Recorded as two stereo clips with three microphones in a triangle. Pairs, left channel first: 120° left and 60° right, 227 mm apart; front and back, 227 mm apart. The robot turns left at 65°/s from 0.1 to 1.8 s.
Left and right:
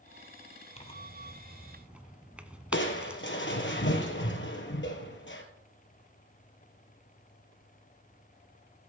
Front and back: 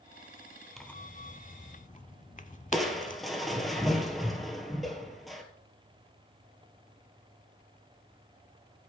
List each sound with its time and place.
0.8 s tearing paper: 90° left, 0.7 m; by 3.2 s 20° left, 0.7 m
2.7 s crushing: 90° left, 1.6 m